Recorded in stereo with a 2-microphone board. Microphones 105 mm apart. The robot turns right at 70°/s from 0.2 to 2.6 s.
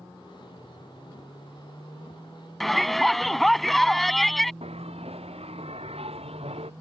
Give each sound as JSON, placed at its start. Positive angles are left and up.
{"t": 2.6, "sound": "a shout", "side_deg": 0}
{"t": 4.6, "sound": "a bell", "side_deg": -75}